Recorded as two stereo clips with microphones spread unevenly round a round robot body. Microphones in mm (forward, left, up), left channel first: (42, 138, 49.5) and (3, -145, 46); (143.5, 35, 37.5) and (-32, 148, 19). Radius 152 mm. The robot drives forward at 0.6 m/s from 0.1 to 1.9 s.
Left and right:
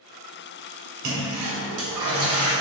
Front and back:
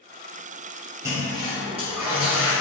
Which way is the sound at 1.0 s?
135° right.